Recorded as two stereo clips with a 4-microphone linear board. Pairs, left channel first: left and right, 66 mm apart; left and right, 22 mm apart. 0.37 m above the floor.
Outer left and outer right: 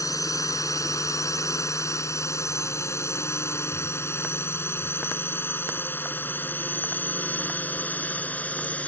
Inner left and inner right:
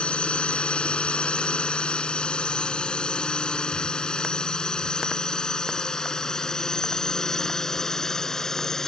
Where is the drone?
60° left (ahead or behind); by 8.9 s 20° left (ahead or behind).